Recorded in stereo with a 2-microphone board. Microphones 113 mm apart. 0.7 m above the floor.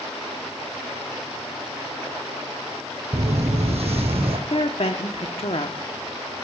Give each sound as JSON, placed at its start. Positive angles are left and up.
{"t": 3.1, "sound": "footsteps", "side_deg": -70, "distance_m": 1.7}
{"t": 4.5, "sound": "a woman speaking", "side_deg": 60, "distance_m": 1.0}